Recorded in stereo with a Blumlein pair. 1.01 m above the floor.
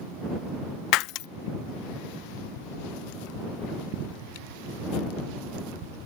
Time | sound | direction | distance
0.9 | breaking glass | 40° left | ?